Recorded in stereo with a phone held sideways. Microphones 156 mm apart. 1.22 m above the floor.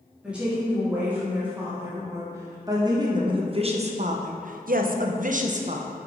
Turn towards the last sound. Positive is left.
turn(degrees=-45)  # may be behind; listen again after turning